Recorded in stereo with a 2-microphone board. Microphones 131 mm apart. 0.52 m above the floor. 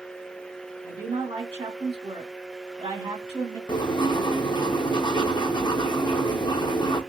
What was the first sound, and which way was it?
A woman speaking, 45° right (ahead or behind).